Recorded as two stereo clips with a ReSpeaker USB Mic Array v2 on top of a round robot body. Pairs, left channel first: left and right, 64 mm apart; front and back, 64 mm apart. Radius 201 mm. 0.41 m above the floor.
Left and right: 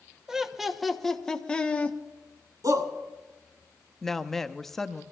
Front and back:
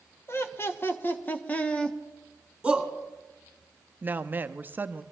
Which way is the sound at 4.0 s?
170° left.